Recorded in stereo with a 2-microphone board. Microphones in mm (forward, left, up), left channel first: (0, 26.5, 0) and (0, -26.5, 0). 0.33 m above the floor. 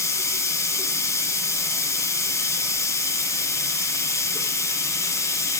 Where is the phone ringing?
No phone ringing in this recording.